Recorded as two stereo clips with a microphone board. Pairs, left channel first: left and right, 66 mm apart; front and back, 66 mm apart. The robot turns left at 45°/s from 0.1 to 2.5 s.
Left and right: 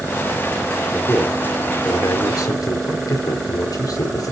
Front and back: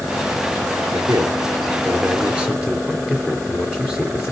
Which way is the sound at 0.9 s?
170° left.